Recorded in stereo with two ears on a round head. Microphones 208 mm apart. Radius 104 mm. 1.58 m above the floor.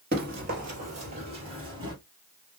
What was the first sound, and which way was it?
Running footsteps, 40° right (ahead or behind).